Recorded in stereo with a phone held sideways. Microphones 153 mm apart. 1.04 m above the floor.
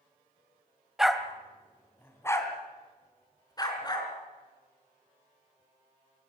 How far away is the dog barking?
About 1.7 m.